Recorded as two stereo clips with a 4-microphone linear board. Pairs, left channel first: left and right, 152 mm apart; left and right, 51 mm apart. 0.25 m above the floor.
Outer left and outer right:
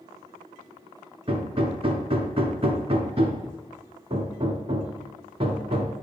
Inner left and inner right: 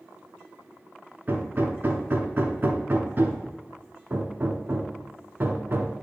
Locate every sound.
1.3 s hammering: 40° right (ahead or behind), 0.9 m